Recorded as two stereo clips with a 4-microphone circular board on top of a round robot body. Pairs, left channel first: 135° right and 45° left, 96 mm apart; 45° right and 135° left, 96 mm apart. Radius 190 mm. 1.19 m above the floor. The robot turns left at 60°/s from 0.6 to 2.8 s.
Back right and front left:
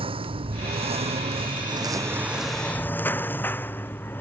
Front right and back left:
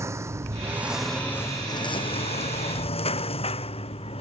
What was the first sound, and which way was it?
A lawn mower, 75° left.